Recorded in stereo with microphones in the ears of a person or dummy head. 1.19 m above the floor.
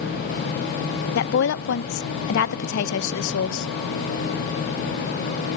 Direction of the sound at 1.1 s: 65° left (ahead or behind).